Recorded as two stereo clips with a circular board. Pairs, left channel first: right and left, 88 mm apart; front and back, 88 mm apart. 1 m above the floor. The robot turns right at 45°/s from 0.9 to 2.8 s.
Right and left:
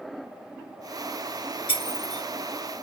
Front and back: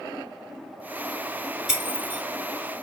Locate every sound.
1.7 s breaking glass: 90° right, 2 m; by 2.2 s 70° right, 2 m